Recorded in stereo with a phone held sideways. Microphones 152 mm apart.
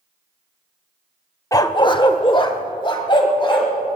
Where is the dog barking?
20° left (ahead or behind), 0.5 m; by 4.0 s 30° left (ahead or behind), 2.5 m.